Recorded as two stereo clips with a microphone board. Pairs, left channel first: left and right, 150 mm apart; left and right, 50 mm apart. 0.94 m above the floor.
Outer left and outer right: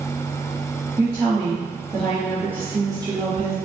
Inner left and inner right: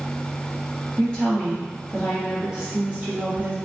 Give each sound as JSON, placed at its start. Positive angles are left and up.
{"t": 1.0, "sound": "a woman speaking", "side_deg": 15, "distance_m": 1.6}